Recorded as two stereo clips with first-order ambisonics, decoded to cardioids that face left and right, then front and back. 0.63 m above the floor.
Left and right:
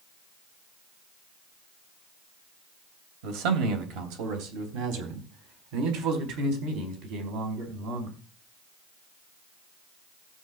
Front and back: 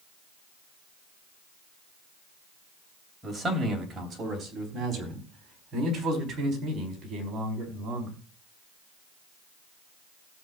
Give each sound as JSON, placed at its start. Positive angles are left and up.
{"t": 3.2, "sound": "a man speaking", "azimuth_deg": -100, "distance_m": 3.0}